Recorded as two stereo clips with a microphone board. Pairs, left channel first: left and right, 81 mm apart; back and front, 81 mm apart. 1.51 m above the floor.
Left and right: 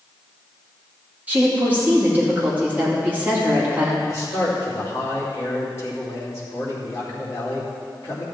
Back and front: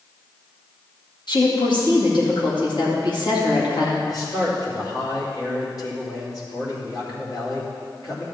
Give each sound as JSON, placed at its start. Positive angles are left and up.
{"t": 1.3, "sound": "a woman speaking", "azimuth_deg": -160, "distance_m": 2.5}
{"t": 4.1, "sound": "a man speaking", "azimuth_deg": 140, "distance_m": 3.0}